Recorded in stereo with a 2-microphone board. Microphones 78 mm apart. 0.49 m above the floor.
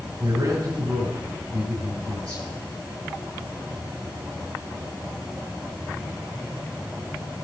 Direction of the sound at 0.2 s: 40° right (ahead or behind).